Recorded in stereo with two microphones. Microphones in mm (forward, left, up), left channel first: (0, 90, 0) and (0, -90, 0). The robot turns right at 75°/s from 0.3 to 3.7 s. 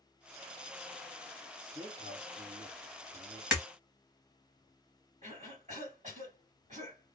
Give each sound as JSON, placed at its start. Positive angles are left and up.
{"t": 1.6, "sound": "a man speaking", "side_deg": -5, "distance_m": 1.6}
{"t": 3.5, "sound": "breaking glass", "side_deg": -5, "distance_m": 1.1}
{"t": 5.2, "sound": "a cough", "side_deg": -45, "distance_m": 2.5}